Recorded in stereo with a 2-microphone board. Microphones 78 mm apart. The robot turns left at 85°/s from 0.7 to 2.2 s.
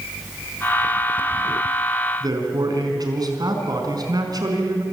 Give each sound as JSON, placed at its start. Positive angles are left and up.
{"t": 2.2, "sound": "a man speaking", "side_deg": -55, "distance_m": 4.5}